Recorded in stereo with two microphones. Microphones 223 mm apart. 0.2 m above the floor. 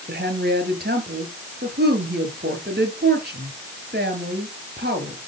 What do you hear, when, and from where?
0.1 s a woman speaking: 45° right (ahead or behind), 4 m